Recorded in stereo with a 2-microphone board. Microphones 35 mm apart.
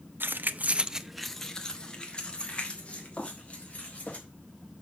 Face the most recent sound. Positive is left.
turn(degrees=45)  # may be behind; listen again after turning